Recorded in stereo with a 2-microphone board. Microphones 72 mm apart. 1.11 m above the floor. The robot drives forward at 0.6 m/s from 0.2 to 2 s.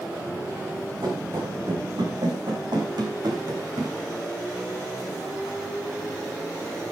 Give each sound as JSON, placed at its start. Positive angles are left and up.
{"t": 1.0, "sound": "running footsteps", "side_deg": -80, "distance_m": 5.5}